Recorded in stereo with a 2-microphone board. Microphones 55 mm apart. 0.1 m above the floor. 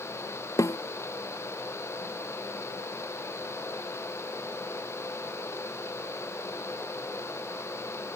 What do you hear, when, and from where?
0.6 s a snare drum: 85° left